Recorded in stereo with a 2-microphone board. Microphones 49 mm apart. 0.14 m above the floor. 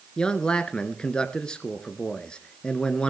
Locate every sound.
0.2 s a man speaking: 20° left (ahead or behind), 1.6 m